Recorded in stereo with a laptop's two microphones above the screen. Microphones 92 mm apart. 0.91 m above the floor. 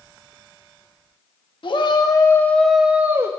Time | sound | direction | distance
1.6 | a shout | 60° left (ahead or behind) | 1.4 m